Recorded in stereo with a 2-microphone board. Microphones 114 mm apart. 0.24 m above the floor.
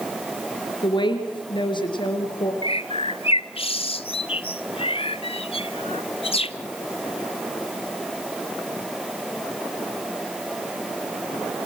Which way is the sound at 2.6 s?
55° left (ahead or behind).